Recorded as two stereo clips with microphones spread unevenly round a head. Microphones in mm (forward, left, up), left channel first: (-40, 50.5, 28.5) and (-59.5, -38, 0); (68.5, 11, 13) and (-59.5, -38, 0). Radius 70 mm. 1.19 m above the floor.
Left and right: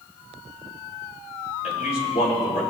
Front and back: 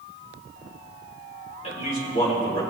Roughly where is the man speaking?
Left.